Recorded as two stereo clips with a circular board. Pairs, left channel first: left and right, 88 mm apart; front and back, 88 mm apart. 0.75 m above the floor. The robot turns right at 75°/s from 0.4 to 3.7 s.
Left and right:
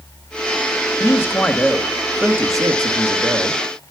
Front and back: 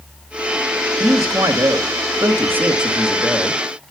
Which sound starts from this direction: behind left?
A man speaking, at 1.0 s.